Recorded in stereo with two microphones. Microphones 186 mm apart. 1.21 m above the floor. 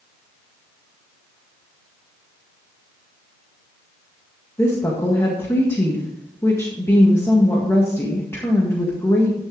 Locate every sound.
4.6 s a woman speaking: 15° left (ahead or behind), 1.6 m